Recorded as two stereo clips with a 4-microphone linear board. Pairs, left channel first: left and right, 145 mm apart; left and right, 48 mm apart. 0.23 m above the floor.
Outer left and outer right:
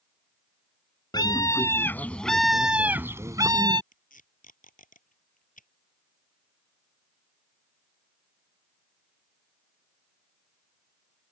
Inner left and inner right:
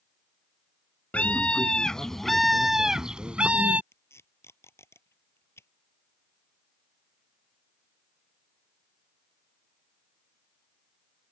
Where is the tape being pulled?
65° left (ahead or behind).